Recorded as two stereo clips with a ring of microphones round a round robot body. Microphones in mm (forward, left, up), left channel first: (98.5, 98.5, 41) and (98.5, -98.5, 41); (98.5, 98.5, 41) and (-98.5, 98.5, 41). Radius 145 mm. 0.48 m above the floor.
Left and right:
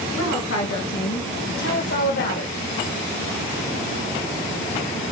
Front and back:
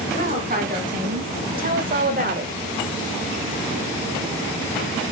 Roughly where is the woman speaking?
Behind left.